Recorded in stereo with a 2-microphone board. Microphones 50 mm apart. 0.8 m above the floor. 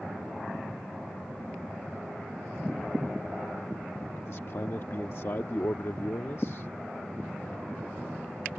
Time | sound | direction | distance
4.2 | a man speaking | 65° left (ahead or behind) | ?